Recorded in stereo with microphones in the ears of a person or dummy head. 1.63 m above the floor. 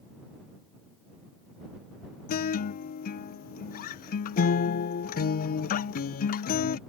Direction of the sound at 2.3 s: 45° left (ahead or behind).